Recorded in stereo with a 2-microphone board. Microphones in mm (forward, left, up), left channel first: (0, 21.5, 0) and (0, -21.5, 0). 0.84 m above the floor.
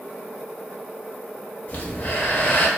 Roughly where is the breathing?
Left.